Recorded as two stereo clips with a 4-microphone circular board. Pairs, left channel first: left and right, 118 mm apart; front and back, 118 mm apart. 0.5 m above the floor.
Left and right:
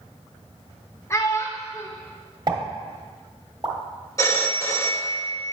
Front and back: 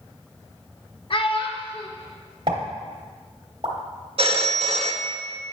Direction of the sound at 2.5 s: 140° right.